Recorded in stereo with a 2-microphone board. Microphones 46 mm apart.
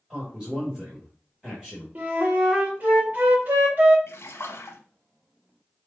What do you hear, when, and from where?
0.1 s a man speaking: 15° right (ahead or behind), 1.5 m
1.9 s a flute: 40° right (ahead or behind), 1.7 m
4.1 s a splash: 70° left (ahead or behind), 1.0 m